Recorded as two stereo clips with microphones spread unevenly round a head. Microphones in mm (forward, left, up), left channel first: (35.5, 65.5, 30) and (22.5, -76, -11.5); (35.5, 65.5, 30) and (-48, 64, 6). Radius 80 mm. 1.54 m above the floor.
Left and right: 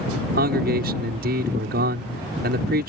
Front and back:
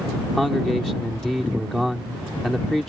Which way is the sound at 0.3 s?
85° right.